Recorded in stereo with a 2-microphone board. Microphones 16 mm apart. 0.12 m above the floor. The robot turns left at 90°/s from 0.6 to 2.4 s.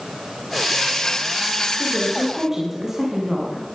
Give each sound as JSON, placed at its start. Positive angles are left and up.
{"t": 1.7, "sound": "a woman speaking", "azimuth_deg": 35, "distance_m": 10.0}